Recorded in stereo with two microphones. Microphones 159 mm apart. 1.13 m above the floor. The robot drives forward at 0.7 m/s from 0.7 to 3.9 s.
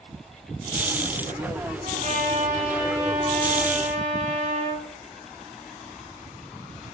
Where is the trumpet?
55° right (ahead or behind), 6 m; by 4.9 s 45° right (ahead or behind), 7 m.